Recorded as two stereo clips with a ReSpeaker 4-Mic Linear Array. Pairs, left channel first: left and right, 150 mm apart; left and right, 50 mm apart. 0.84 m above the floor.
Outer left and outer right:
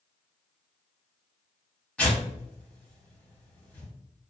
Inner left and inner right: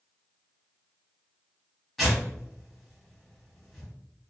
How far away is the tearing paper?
About 1.7 m.